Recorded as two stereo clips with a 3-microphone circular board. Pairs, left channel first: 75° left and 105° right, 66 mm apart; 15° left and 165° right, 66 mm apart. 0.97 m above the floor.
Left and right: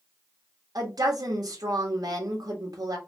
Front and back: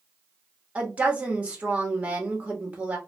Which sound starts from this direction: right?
A woman speaking, at 0.8 s.